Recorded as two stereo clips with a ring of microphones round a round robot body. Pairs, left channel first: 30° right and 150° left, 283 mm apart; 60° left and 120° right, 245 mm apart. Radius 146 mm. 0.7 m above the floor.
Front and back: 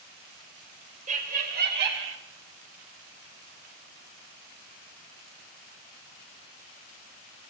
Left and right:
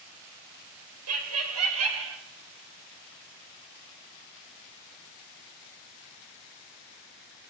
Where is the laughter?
145° right, 3.5 m; by 2.2 s 165° right, 3.5 m.